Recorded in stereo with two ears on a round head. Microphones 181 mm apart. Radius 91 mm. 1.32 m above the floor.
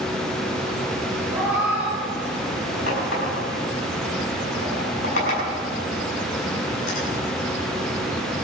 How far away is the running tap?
About 6 m.